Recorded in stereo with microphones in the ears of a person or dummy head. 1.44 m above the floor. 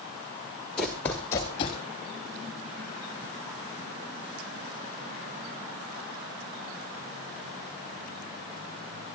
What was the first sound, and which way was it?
Running footsteps, 5° left (ahead or behind).